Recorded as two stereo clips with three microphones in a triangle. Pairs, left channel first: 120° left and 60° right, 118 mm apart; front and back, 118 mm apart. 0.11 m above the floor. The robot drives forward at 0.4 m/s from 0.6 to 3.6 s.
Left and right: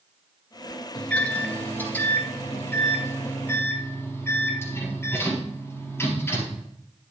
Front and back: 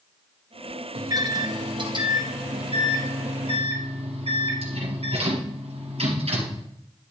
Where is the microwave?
165° right, 1.4 m; by 6.6 s 175° right, 2 m.